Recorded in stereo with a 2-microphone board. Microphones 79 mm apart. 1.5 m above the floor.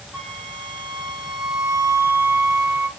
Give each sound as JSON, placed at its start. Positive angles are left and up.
{"t": 0.1, "sound": "a flute", "side_deg": 25, "distance_m": 4.0}